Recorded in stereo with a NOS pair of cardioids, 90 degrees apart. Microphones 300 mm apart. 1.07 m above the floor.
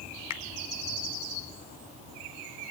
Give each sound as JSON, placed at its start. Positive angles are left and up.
{"t": 0.3, "sound": "a finger snap", "azimuth_deg": 65, "distance_m": 2.5}